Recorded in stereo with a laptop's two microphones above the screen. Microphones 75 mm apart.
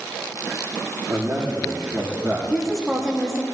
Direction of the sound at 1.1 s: 40° right (ahead or behind).